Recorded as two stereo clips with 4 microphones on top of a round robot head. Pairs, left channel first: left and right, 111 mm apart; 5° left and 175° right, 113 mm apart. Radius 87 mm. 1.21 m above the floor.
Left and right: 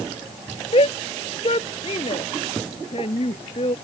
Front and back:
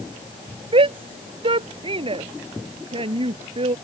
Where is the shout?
145° left.